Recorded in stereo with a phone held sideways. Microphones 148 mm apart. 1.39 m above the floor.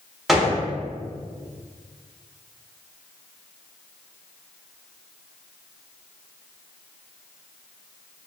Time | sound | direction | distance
0.3 | a gunshot | centre (ahead or behind) | 0.6 m